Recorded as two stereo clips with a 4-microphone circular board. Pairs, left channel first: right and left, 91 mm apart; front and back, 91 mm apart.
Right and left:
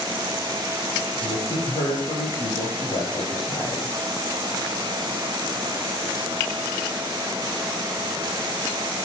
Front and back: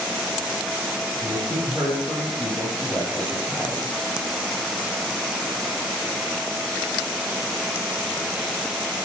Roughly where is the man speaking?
Right.